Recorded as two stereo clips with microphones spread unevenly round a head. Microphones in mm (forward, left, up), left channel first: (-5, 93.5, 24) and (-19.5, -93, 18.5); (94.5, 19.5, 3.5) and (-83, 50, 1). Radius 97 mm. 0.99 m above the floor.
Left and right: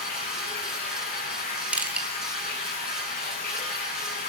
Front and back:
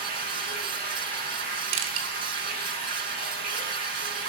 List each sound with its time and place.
0.0 s running water: 130° left, 9 m
1.7 s crushing: 175° right, 2 m